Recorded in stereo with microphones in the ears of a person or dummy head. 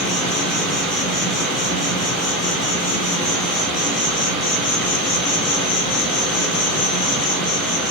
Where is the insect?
5° left (ahead or behind), 1.7 m.